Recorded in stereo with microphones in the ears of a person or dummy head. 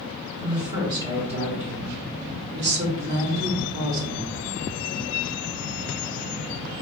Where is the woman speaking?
15° right (ahead or behind), 1.6 m; by 4.4 s 45° right (ahead or behind), 1.1 m.